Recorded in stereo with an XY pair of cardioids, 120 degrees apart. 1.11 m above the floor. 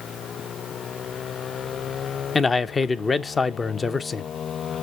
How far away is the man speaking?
About 0.6 m.